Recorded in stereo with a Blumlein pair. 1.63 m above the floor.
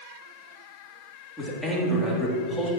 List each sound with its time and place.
1.4 s a man speaking: 5° right, 3 m